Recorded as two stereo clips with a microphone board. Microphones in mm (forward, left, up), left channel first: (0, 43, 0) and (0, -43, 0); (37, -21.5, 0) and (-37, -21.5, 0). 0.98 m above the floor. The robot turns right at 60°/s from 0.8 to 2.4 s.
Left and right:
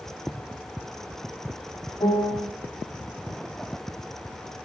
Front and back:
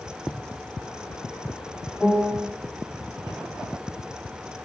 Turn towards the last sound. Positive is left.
turn(degrees=105)